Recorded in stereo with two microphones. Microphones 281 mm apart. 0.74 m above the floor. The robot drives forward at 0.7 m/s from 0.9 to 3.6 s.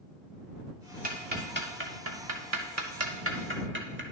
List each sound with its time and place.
1.0 s ticking: 30° right (ahead or behind), 1.3 m; by 4.0 s 40° right (ahead or behind), 1.0 m